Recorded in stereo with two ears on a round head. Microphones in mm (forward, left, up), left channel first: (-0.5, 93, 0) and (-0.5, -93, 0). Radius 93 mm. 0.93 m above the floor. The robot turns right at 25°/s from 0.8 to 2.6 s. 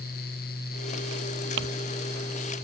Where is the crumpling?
65° right (ahead or behind).